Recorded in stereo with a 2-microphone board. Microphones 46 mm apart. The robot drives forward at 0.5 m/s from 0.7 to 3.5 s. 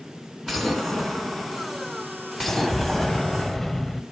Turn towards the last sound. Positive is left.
turn(degrees=5)  # may be behind; listen again after turning